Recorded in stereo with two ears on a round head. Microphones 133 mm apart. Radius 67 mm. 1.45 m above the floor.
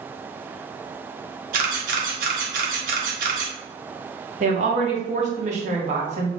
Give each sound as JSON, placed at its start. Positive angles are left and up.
{"t": 1.5, "sound": "a camera shutter", "side_deg": -60, "distance_m": 1.2}
{"t": 4.4, "sound": "a woman speaking", "side_deg": -50, "distance_m": 1.3}